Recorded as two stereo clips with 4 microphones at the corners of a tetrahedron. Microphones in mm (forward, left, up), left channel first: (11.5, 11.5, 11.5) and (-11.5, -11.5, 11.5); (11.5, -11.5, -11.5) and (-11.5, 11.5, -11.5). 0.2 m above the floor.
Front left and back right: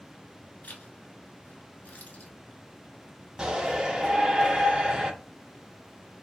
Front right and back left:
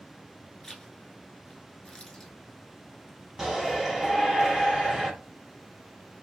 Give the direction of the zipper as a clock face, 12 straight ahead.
11 o'clock.